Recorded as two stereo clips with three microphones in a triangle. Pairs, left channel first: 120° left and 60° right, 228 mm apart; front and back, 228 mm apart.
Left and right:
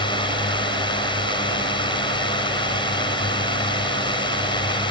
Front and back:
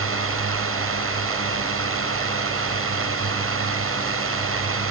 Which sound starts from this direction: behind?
A drone, at 0.0 s.